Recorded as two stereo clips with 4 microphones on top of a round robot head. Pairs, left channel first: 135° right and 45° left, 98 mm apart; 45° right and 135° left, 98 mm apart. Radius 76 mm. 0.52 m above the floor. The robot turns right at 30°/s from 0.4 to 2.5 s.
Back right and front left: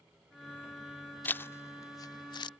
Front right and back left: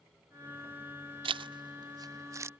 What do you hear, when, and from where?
1.2 s a zipper: 155° left; by 2.5 s 165° right